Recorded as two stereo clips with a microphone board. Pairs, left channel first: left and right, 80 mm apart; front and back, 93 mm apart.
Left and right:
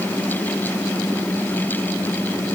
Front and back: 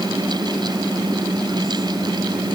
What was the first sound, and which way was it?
Only background noise.